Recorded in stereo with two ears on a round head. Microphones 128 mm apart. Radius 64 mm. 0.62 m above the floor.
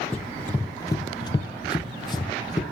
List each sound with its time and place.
0.1 s running footsteps: 10° left (ahead or behind), 0.9 m; by 2.6 s 30° left (ahead or behind), 1.2 m